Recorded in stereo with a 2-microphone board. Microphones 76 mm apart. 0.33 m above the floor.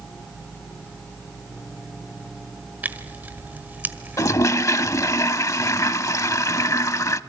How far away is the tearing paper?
About 1.5 m.